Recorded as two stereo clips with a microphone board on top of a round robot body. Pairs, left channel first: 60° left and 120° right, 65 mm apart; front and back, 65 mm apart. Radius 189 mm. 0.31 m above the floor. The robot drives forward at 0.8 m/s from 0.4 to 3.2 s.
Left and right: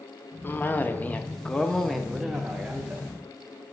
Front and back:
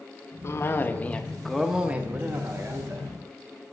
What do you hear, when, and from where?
0.4 s a cough: 15° left, 1.3 m; by 3.7 s 170° left, 1.7 m